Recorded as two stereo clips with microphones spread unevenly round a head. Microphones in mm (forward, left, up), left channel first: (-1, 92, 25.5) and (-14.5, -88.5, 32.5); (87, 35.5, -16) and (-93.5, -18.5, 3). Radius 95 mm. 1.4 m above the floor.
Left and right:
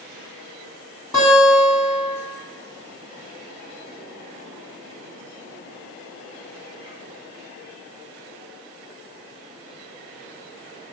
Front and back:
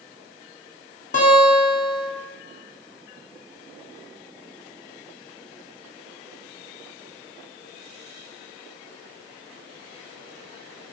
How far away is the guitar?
About 1.4 m.